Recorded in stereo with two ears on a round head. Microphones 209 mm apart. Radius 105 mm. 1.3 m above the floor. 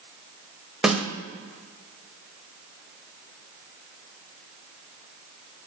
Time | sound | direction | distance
0.8 | a snare drum | 5° right (ahead or behind) | 0.7 m